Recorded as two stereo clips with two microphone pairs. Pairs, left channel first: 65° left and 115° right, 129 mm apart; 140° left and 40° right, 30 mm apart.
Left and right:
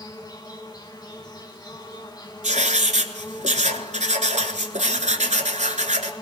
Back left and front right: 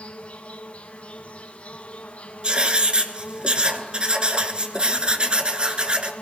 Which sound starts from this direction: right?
Writing, at 2.4 s.